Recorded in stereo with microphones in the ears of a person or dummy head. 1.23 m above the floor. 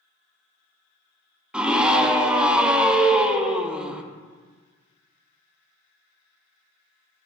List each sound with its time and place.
1.5 s a scream: 5° right (ahead or behind), 0.7 m